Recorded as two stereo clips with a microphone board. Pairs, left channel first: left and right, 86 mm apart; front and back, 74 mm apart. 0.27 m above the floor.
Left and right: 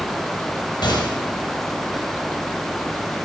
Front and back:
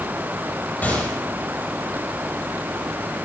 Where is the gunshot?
70° left, 5.5 m.